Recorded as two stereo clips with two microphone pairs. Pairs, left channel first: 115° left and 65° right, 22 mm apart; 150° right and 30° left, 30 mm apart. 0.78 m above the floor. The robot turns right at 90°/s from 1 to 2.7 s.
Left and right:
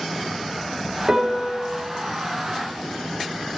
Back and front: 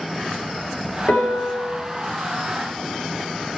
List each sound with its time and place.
1.1 s a piano: 130° right, 2.5 m; by 1.7 s 75° right, 2.5 m